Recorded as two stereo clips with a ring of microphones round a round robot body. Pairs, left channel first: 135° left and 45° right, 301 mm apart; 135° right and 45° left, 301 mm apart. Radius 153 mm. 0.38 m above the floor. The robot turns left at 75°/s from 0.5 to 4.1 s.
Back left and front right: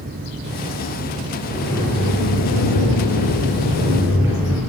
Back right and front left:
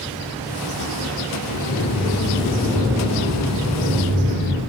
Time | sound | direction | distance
1.5 | a sliding door | 125° right | 8 m